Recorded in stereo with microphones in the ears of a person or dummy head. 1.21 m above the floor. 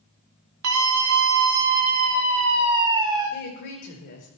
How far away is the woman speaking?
About 5 m.